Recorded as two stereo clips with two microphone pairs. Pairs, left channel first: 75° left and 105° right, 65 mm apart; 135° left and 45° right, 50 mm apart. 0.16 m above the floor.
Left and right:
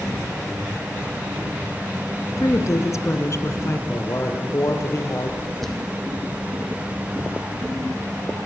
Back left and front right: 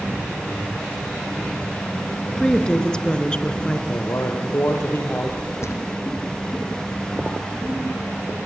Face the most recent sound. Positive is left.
turn(degrees=160)